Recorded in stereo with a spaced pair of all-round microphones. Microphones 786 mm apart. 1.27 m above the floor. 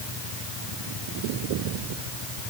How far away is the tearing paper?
No tearing paper in this recording.